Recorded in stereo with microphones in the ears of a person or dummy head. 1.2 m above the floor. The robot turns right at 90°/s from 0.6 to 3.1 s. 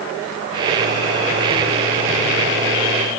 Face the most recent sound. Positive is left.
No sound to turn to.